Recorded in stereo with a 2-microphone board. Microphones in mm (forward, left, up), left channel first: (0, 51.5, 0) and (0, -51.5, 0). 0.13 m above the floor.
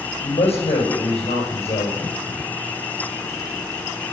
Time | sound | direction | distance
0.2 | a woman speaking | 75° left (ahead or behind) | 5.5 m